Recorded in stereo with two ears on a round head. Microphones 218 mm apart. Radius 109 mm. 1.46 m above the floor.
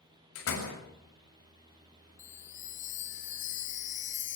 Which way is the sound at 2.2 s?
30° left (ahead or behind).